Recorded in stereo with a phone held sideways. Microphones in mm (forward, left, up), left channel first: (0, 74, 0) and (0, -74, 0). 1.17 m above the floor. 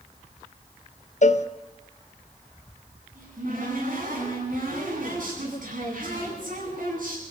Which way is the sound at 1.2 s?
55° left (ahead or behind).